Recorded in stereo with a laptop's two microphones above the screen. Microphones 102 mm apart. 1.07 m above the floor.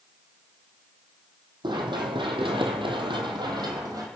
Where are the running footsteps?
55° right (ahead or behind), 2.5 m; by 4.1 s 40° right (ahead or behind), 2.5 m.